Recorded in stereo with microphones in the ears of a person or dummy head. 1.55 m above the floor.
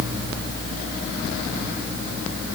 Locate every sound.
Only background noise.